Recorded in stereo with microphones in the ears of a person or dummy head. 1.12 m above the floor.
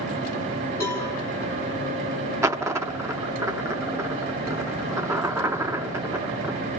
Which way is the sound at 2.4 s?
15° right (ahead or behind).